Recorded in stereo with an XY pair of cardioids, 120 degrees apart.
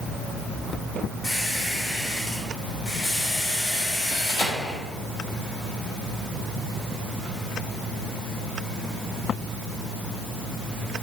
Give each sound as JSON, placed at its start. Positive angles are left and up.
{"t": 1.2, "sound": "a squeak", "azimuth_deg": 70, "distance_m": 2.5}